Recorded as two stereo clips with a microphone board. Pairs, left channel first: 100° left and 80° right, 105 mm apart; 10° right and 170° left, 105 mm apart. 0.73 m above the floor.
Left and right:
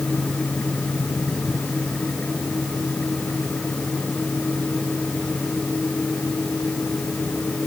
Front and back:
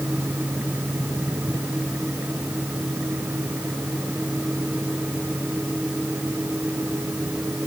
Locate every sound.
Only background noise.